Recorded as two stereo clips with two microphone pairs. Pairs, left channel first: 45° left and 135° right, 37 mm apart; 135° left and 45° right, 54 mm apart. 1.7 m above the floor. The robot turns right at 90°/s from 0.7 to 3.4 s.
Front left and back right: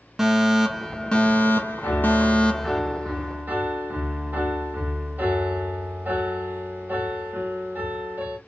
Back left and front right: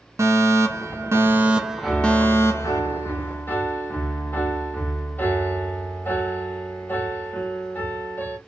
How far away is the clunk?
No clunk in this recording.